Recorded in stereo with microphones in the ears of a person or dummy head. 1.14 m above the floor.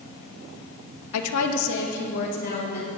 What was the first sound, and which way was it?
A woman speaking, 90° left.